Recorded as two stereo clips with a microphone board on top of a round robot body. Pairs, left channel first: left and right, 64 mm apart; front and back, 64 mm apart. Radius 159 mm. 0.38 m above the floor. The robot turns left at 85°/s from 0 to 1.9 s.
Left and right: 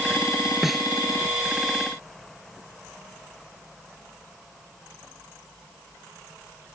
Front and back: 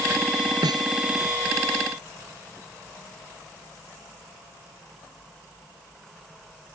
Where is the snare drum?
175° right; by 0.9 s 165° left.